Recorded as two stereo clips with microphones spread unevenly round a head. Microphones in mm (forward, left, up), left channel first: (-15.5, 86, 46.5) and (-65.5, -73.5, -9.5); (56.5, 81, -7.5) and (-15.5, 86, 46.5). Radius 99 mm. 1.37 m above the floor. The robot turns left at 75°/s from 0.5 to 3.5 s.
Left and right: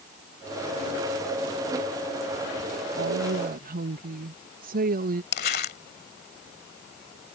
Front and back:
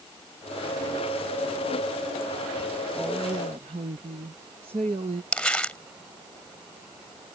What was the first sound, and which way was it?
A woman speaking, 100° right.